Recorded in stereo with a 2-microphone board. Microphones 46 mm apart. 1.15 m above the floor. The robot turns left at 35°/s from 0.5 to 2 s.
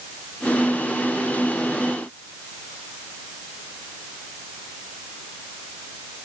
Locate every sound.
Only background noise.